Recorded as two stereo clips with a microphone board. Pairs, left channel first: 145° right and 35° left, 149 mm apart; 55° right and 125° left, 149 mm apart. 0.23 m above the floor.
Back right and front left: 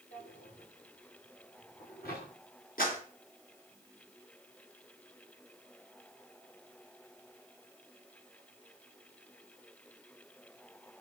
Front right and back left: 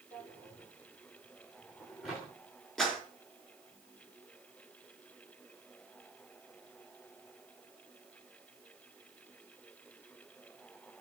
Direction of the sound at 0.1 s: 145° right.